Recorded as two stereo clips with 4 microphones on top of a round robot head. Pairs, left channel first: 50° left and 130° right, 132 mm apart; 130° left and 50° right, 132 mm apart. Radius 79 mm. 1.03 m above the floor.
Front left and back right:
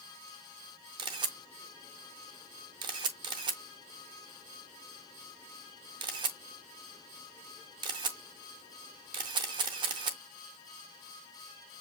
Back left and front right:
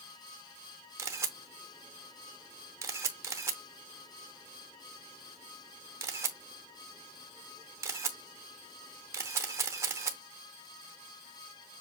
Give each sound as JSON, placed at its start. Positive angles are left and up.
{"t": 1.0, "sound": "a camera shutter", "azimuth_deg": -105, "distance_m": 0.7}